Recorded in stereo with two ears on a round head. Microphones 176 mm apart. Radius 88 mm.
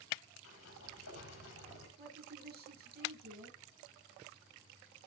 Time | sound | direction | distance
0.4 | a sliding door | 75° left (ahead or behind) | 5.5 m
2.0 | a woman speaking | 50° right (ahead or behind) | 7 m